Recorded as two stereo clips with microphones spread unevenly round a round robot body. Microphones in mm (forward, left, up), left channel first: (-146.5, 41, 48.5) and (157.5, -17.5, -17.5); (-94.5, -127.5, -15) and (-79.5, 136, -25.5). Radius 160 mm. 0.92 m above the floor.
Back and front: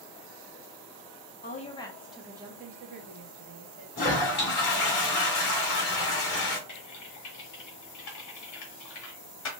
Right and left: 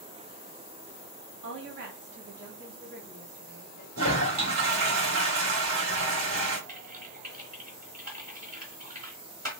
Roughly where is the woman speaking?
Left.